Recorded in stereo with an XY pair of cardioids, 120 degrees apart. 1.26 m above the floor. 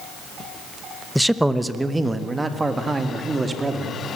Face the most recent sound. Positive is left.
turn(degrees=-20)